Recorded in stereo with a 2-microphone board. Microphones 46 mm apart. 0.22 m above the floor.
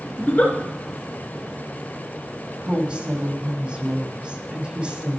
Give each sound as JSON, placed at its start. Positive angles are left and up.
{"t": 0.2, "sound": "a giggle", "side_deg": 25, "distance_m": 2.5}
{"t": 2.6, "sound": "a woman speaking", "side_deg": -25, "distance_m": 1.5}